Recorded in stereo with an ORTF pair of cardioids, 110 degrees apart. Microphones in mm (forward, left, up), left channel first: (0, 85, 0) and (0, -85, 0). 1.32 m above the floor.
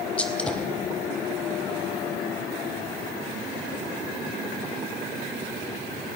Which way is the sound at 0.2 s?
5° left.